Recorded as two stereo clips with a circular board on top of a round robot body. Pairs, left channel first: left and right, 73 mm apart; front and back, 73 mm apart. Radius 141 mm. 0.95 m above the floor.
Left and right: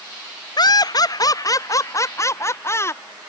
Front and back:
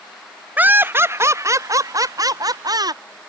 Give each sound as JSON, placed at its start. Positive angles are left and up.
{"t": 0.6, "sound": "laughter", "azimuth_deg": 110}